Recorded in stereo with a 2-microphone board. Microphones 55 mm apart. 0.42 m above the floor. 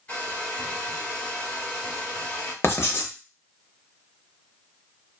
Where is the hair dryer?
25° left (ahead or behind), 1.8 m.